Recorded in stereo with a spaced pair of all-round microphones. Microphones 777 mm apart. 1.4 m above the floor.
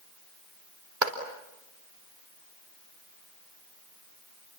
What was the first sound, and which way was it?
A clap, 80° right.